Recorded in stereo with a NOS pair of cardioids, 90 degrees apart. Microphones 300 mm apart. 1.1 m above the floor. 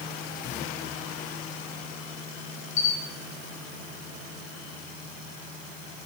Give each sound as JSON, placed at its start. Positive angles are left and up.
{"t": 2.8, "sound": "a camera shutter", "azimuth_deg": 60, "distance_m": 3.0}